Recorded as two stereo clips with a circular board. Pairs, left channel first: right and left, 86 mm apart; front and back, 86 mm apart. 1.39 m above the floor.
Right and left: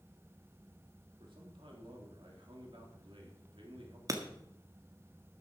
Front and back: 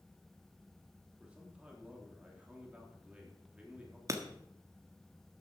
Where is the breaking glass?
135° left, 1.4 m.